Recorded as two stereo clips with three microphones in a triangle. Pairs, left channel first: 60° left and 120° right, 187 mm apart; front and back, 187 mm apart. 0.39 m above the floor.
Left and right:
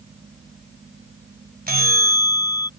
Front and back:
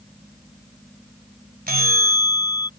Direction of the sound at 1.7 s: 150° right.